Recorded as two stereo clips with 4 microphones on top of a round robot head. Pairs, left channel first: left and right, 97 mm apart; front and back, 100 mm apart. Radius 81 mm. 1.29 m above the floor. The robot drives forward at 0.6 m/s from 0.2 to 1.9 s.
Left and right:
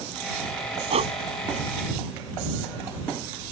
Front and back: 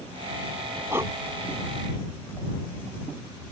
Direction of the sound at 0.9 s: 105° right.